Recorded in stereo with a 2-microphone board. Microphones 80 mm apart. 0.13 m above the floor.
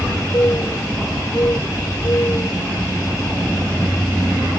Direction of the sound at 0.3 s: 40° left (ahead or behind).